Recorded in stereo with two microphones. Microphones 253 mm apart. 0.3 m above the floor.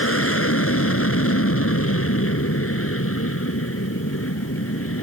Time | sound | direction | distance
0.0 | an aircraft | 60° left (ahead or behind) | ?